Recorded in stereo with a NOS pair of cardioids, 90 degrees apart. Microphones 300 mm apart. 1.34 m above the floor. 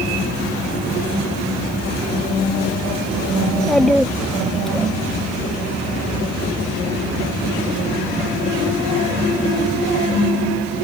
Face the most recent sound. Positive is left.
turn(degrees=0)